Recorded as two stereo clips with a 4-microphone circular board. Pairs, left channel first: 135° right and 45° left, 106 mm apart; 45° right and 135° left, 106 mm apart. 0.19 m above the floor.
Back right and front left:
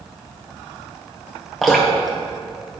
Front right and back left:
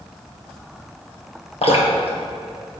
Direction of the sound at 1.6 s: 45° right.